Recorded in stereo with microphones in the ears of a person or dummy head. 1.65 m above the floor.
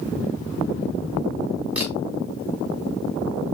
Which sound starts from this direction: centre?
A camera shutter, at 1.8 s.